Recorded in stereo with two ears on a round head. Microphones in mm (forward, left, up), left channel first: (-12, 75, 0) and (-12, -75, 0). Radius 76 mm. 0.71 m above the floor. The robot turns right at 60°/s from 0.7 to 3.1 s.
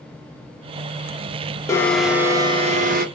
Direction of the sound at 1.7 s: 160° left.